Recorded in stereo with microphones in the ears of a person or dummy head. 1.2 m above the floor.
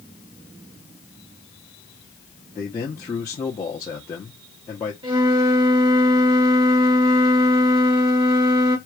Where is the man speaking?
15° left (ahead or behind), 1.0 m.